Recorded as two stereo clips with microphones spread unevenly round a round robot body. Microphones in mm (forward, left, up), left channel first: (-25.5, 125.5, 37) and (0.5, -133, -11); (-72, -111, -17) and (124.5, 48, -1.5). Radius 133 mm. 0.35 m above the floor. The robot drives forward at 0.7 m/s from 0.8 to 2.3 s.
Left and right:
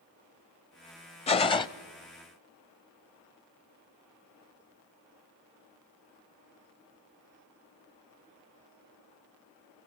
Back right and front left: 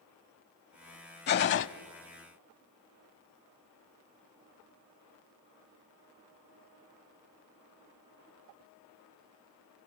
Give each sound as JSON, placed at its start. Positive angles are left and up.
{"t": 1.3, "sound": "a gunshot", "azimuth_deg": 165, "distance_m": 0.6}